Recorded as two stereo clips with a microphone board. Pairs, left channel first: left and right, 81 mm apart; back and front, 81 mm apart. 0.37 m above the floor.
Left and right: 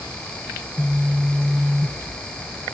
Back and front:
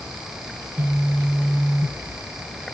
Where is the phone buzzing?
10° right, 1.3 m.